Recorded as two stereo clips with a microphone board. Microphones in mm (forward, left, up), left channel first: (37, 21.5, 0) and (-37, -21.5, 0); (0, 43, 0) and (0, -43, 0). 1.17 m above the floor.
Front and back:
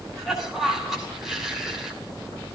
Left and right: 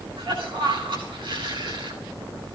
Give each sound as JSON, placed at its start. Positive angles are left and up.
{"t": 0.2, "sound": "a cough", "azimuth_deg": -65, "distance_m": 9.0}